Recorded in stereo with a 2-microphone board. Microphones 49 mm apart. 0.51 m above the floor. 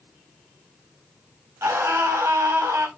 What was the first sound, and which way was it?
A scream, 70° right (ahead or behind).